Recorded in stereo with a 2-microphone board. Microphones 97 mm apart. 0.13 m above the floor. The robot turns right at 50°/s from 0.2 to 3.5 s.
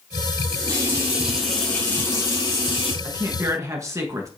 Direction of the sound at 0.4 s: 55° right.